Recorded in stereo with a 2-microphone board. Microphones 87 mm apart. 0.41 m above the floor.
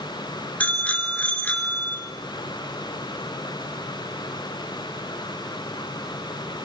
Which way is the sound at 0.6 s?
15° left (ahead or behind).